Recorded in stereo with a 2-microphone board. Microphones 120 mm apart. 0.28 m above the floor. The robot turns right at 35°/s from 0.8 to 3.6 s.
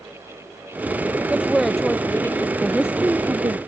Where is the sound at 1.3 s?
10° right; by 2.5 s 30° left.